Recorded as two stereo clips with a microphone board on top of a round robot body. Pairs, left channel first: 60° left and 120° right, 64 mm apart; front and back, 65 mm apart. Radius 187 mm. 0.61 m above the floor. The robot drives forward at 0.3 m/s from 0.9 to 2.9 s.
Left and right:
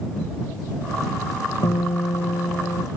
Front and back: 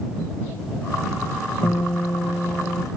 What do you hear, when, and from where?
1.6 s a guitar: 60° left; by 2.9 s 65° left